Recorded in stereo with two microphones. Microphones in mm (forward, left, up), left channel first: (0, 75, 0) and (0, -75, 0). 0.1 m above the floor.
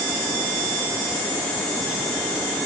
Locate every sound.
Only background noise.